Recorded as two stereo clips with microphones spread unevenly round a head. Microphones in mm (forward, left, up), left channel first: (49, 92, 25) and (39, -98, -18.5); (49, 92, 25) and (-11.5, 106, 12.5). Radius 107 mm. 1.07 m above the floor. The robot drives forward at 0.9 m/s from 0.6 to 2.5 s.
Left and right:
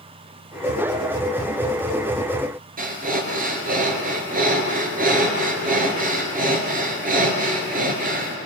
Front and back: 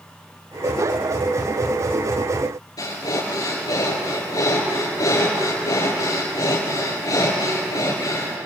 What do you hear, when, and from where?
2.8 s breathing: 45° right, 3.5 m